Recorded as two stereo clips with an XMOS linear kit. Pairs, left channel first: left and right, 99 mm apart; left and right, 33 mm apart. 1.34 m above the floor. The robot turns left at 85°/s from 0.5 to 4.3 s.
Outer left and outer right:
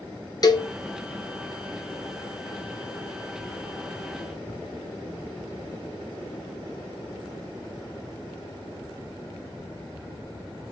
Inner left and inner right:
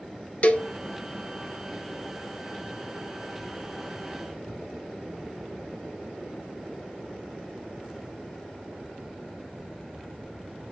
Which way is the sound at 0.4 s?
40° left (ahead or behind).